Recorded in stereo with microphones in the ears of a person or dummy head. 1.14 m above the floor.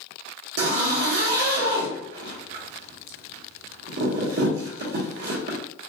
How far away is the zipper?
About 1.2 m.